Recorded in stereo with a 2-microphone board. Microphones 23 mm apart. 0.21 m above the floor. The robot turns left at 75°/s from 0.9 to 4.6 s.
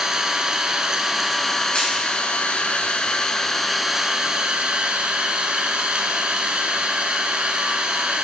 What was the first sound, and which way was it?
An engine running, 145° right.